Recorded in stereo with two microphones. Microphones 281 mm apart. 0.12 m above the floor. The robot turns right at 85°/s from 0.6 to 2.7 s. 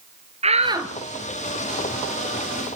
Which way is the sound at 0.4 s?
20° right (ahead or behind).